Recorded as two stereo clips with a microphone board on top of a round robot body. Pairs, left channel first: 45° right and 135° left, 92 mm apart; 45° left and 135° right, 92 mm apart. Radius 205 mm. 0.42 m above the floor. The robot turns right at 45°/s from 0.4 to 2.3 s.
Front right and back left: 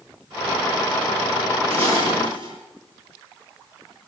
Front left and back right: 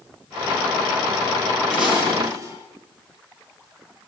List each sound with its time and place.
1.7 s dishes clattering: 135° left, 9.5 m; by 2.5 s 165° left, 9.5 m